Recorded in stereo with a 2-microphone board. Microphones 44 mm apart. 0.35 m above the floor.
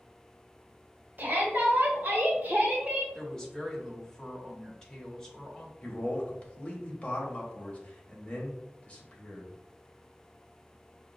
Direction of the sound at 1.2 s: 40° right (ahead or behind).